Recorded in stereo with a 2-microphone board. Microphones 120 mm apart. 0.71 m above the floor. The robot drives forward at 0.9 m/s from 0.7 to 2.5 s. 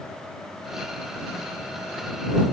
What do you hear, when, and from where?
Only background noise.